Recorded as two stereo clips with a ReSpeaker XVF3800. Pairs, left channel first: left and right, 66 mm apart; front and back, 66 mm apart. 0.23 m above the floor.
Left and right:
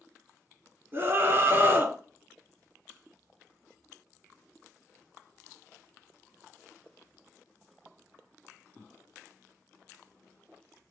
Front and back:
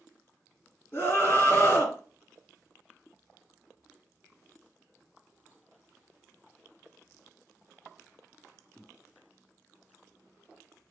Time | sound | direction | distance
0.9 | a scream | 50° right | 2 m